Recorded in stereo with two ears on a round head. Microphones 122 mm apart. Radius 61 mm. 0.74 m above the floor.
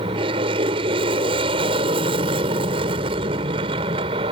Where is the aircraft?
40° right (ahead or behind).